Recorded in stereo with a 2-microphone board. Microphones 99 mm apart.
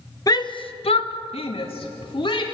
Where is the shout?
40° left (ahead or behind), 1.2 m; by 2.4 s 60° left (ahead or behind), 3 m.